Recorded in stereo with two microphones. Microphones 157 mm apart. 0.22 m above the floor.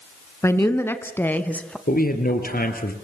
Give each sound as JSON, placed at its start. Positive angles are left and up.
{"t": 0.4, "sound": "a woman speaking", "side_deg": 15, "distance_m": 2.0}
{"t": 1.9, "sound": "a man speaking", "side_deg": 70, "distance_m": 4.0}